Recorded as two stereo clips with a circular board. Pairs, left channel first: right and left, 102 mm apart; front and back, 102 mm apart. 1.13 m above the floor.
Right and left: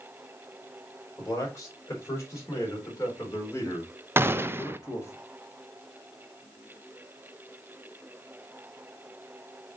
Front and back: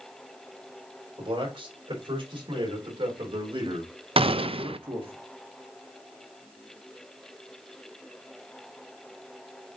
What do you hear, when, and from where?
1.2 s a man speaking: 150° right, 5 m
4.2 s a gunshot: 155° left, 0.5 m